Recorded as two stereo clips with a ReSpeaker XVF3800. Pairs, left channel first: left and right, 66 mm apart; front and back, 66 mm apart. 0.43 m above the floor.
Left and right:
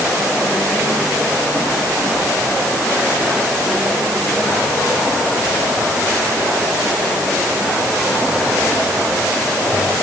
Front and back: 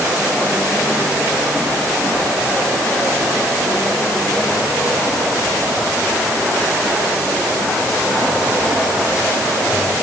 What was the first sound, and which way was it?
Only background noise.